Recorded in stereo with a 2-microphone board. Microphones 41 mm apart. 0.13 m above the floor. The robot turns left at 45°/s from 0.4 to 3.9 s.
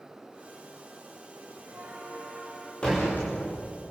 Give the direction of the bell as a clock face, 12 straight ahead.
4 o'clock.